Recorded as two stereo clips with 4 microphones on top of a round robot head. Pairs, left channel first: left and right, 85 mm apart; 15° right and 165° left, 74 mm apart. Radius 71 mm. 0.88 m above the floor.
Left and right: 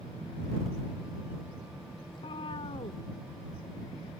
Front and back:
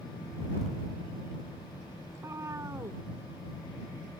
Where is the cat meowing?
115° left.